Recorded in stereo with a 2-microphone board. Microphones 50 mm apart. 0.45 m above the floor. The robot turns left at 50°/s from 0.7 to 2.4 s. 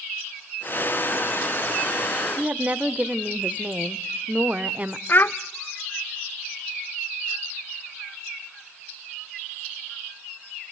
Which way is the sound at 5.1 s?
40° left (ahead or behind).